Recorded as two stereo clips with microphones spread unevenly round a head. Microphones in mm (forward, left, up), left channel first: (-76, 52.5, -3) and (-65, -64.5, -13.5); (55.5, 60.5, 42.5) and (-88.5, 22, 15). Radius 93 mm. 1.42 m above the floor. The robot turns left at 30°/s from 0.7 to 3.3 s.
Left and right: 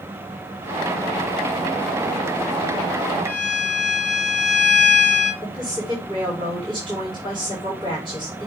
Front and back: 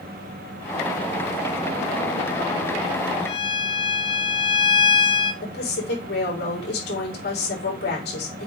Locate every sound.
3.2 s a violin: 45° right, 1.7 m; by 5.3 s 50° right, 1.7 m
5.4 s a woman speaking: 15° right, 4 m